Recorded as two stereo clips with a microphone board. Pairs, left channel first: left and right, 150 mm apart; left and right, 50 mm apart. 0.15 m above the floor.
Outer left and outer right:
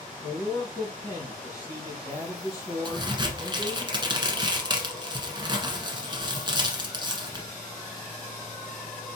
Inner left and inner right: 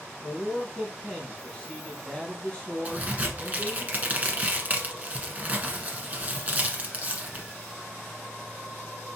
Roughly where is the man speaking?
Centre.